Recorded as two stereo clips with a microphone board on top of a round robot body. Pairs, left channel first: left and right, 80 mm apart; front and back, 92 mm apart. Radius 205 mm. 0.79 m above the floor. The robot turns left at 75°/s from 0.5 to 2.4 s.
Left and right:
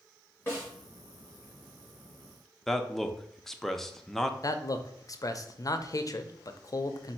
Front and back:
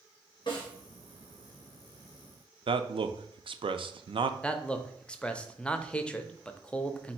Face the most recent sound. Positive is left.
turn(degrees=75)